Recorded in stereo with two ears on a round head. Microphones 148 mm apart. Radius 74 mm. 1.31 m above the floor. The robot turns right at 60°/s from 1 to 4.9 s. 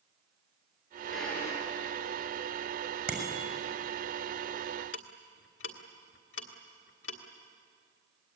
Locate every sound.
1.1 s a drawer: 5° right (ahead or behind), 6.5 m; by 1.6 s 25° left (ahead or behind), 6.5 m
3.1 s a bicycle bell: 10° right (ahead or behind), 5.5 m; by 3.4 s 5° left (ahead or behind), 5.5 m
4.9 s ticking: 75° left (ahead or behind), 1.8 m